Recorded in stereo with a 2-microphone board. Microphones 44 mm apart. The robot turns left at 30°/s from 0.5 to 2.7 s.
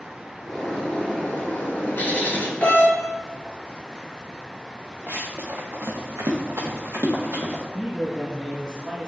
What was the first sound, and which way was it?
A bird, 165° left.